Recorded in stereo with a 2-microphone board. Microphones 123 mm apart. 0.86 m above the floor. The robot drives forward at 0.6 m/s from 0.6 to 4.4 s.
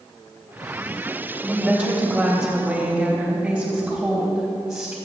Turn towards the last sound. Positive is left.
turn(degrees=-5)  # may be behind; listen again after turning